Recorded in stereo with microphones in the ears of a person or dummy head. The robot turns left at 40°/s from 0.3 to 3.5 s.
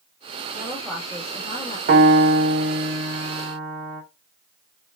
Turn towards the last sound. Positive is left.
turn(degrees=-160)